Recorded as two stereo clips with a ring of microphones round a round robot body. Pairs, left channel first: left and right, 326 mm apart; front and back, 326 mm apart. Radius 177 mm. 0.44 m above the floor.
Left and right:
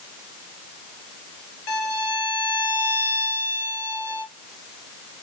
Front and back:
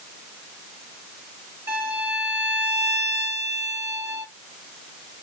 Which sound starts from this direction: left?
A violin, at 1.7 s.